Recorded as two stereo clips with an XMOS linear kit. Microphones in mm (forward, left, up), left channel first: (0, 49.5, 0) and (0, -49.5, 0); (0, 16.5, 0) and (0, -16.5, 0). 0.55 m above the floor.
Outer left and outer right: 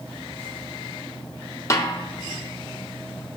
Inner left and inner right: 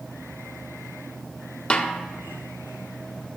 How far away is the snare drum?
About 0.7 m.